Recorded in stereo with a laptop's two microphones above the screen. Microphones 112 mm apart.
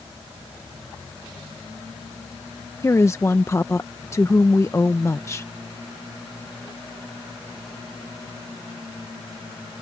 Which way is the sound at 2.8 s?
25° left (ahead or behind).